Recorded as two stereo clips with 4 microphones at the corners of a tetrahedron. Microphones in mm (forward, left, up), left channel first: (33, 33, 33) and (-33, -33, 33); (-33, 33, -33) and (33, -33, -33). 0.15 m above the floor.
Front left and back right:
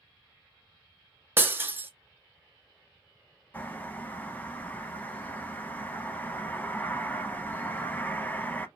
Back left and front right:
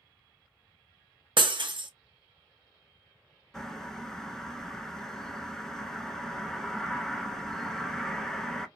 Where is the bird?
60° left, 0.6 m.